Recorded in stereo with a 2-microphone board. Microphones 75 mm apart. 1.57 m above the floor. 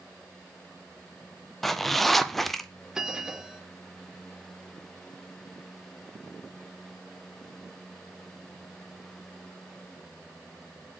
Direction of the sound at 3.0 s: 10° right (ahead or behind).